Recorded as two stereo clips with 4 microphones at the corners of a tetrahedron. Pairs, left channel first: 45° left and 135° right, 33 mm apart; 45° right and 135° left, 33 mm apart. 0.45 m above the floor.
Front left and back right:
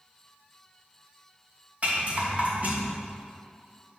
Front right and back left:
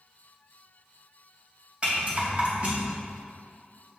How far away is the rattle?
About 2.5 m.